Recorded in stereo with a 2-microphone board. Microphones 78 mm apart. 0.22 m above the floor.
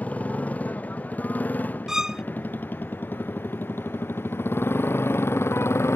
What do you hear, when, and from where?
0.0 s a motorcycle: 20° left (ahead or behind); by 6.0 s 35° left (ahead or behind)
1.9 s a violin: 10° right (ahead or behind)